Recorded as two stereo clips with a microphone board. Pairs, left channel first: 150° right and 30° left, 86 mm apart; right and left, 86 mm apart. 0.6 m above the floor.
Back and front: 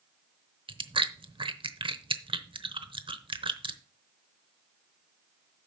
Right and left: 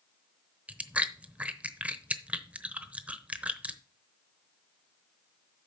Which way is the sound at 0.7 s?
15° left.